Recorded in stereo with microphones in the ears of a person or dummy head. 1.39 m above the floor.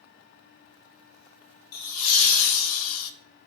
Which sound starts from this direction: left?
Laughter, at 1.7 s.